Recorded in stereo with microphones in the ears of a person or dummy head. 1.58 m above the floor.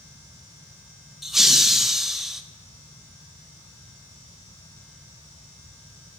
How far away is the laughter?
About 0.6 m.